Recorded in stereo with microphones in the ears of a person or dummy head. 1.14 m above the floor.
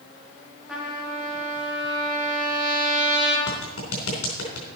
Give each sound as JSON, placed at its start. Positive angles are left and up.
{"t": 0.7, "sound": "a trumpet", "side_deg": 0, "distance_m": 2.5}
{"t": 3.5, "sound": "a clap", "side_deg": 80, "distance_m": 3.5}